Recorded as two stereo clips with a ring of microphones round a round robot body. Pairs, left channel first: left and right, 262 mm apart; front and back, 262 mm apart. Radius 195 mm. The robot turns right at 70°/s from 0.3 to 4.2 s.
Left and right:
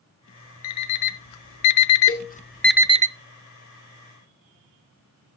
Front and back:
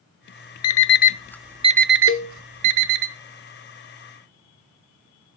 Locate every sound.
0.6 s an alarm clock: 35° left, 0.6 m; by 3.1 s 155° right, 0.6 m
2.1 s a cowbell: 30° left, 2 m; by 2.3 s 50° left, 2 m